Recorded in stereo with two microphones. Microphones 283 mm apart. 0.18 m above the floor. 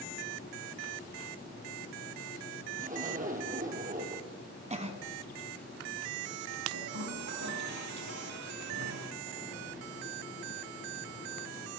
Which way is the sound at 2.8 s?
30° right (ahead or behind).